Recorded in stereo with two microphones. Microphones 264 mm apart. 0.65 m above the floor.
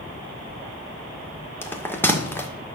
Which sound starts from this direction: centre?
A bell, at 1.6 s.